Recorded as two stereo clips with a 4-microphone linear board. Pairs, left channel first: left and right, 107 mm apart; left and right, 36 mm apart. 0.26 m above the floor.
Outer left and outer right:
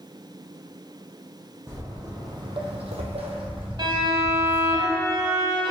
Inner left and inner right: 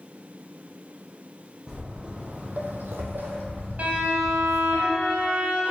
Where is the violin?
50° right (ahead or behind), 0.7 m.